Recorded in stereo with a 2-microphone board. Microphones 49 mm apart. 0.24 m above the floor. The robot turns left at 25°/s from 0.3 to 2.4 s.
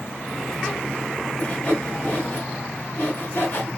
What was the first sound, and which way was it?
Sawing, 35° left (ahead or behind).